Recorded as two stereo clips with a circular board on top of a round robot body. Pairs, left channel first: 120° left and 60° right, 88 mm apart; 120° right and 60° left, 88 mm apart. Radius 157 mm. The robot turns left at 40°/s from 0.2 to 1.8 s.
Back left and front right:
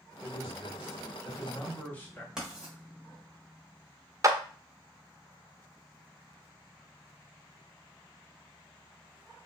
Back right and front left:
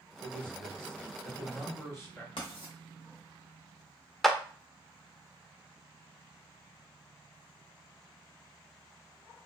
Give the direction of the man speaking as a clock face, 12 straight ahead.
4 o'clock.